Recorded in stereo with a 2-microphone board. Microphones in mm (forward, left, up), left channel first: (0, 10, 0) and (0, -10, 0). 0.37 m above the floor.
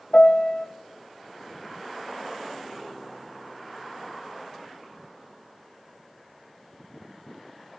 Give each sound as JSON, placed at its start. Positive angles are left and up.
{"t": 0.1, "sound": "a piano", "side_deg": 55, "distance_m": 0.7}